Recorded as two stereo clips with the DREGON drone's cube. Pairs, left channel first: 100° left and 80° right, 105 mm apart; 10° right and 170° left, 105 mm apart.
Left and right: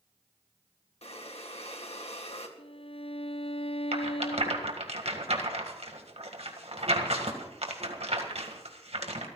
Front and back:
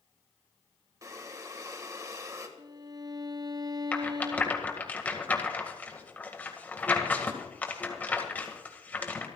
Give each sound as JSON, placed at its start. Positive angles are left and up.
{"t": 1.0, "sound": "breathing", "azimuth_deg": 115, "distance_m": 1.9}
{"t": 2.6, "sound": "a violin", "azimuth_deg": 120, "distance_m": 0.6}
{"t": 3.9, "sound": "a rattle", "azimuth_deg": -85, "distance_m": 2.0}